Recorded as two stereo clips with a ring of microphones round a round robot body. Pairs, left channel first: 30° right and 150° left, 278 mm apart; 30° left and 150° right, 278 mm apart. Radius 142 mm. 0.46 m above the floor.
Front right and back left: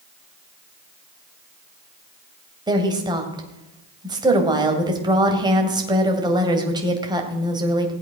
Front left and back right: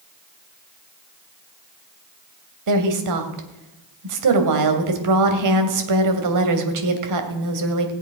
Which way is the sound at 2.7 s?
135° right.